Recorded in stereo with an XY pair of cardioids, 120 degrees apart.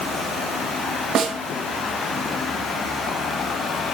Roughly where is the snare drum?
Ahead right.